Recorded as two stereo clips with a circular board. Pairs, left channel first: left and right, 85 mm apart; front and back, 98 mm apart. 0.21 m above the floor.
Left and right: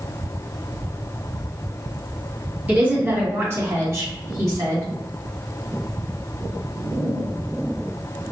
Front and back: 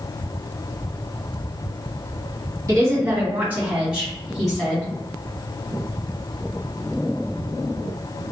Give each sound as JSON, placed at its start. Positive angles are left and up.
{"t": 2.7, "sound": "a woman speaking", "azimuth_deg": -145, "distance_m": 2.0}